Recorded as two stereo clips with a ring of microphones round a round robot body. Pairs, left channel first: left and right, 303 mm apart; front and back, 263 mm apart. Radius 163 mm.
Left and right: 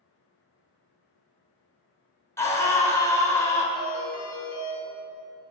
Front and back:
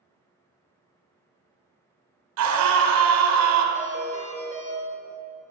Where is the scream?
170° left, 2.5 m.